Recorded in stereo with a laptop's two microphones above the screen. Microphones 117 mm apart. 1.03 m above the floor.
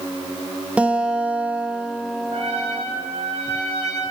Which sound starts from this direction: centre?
A guitar, at 0.8 s.